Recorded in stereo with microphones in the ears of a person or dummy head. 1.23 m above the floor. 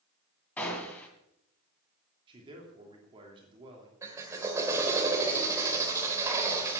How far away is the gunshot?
About 2 m.